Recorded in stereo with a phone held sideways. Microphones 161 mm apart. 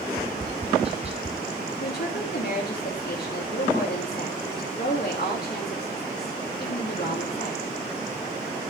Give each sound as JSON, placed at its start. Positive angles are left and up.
{"t": 0.2, "sound": "tapping", "side_deg": -35, "distance_m": 1.3}
{"t": 1.8, "sound": "a woman speaking", "side_deg": 75, "distance_m": 3.0}